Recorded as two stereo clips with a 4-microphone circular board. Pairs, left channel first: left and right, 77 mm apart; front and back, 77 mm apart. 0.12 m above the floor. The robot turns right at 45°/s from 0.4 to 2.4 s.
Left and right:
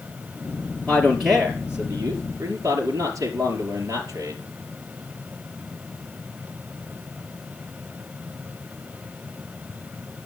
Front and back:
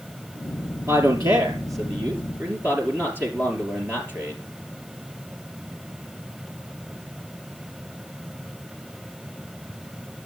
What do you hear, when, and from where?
0.9 s a man speaking: 170° left, 3 m; by 4.4 s 125° right, 3 m